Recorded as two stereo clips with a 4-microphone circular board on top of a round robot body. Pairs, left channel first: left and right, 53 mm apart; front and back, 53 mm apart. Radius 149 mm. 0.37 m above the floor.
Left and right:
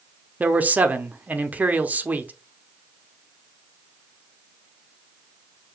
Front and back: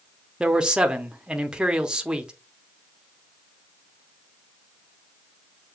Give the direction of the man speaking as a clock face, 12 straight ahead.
4 o'clock.